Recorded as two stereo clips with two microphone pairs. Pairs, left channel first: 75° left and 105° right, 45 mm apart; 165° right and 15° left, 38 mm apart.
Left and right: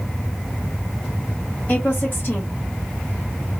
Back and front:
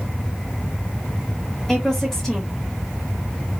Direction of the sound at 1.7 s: 115° left.